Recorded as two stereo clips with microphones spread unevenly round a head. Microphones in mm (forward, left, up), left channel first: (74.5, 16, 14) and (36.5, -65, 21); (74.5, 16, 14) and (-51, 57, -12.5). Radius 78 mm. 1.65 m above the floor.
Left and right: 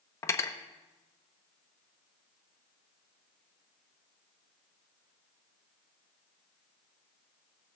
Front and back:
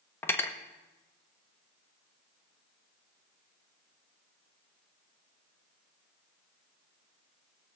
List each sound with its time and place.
0.2 s cutlery clinking: 20° left, 0.9 m